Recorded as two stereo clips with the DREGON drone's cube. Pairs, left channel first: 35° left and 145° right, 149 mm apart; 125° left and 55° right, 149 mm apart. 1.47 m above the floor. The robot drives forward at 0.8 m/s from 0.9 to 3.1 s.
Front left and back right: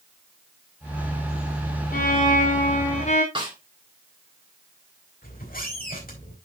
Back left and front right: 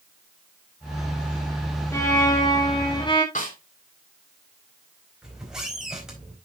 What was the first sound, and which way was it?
A violin, 55° left.